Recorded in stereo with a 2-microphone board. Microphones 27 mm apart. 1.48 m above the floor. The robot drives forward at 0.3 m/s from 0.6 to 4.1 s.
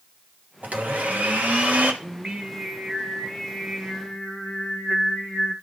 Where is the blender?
70° right (ahead or behind), 1.1 m.